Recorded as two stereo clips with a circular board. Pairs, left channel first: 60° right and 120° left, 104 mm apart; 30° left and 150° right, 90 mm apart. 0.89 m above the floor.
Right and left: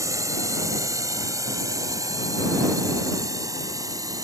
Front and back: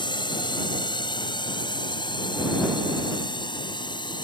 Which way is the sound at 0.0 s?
60° left.